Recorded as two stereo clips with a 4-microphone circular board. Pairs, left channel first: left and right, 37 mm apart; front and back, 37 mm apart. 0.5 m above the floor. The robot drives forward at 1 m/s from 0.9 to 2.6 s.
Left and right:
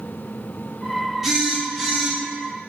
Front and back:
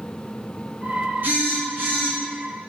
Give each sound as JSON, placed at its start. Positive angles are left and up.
{"t": 1.2, "sound": "a phone buzzing", "azimuth_deg": -170, "distance_m": 1.7}